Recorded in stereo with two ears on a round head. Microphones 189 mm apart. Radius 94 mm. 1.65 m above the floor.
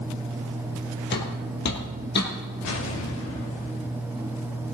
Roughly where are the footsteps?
Left.